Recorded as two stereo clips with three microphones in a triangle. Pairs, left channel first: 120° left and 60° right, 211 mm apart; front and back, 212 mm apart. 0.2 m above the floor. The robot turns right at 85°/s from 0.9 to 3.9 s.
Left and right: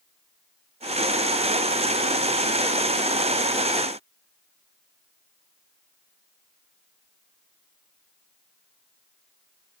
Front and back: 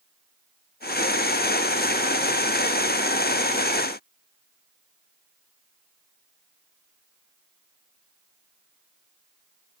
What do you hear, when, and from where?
Only background noise.